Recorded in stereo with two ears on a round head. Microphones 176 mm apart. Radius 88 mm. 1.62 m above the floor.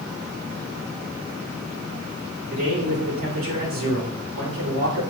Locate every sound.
2.5 s a man speaking: 80° right, 4 m